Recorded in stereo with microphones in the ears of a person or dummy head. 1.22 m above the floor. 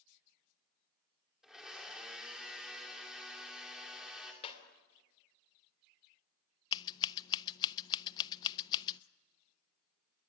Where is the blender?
Centre (ahead or behind), 2.5 m.